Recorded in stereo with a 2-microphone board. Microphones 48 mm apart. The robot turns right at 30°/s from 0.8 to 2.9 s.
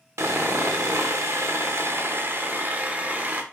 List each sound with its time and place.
0.2 s sawing: 95° right, 0.8 m; by 3.4 s 35° right, 0.8 m